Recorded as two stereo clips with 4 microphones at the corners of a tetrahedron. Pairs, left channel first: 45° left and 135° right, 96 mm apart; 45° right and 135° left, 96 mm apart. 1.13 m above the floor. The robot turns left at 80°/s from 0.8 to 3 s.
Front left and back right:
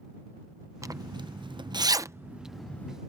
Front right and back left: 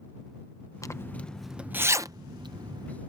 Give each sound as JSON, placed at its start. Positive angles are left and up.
{"t": 0.8, "sound": "a zipper", "azimuth_deg": -85}